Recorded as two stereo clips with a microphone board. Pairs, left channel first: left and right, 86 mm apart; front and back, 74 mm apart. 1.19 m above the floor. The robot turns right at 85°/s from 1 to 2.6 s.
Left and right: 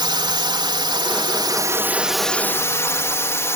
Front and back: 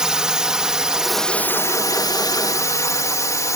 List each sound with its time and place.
0.0 s a drone: 100° right; by 3.6 s 35° left